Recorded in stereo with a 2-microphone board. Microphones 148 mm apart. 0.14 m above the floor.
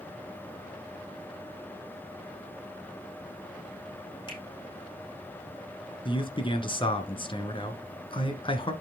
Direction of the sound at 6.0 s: 35° left (ahead or behind).